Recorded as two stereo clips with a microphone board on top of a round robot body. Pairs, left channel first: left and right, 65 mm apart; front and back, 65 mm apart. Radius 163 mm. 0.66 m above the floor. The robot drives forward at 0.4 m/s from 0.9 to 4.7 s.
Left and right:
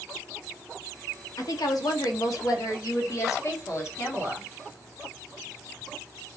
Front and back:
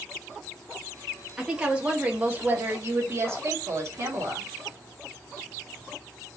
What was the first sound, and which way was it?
A woman speaking, 100° left.